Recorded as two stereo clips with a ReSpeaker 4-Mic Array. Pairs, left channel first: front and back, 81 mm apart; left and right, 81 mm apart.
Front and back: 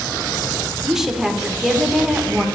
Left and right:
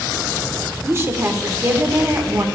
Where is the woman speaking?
100° right, 0.8 m.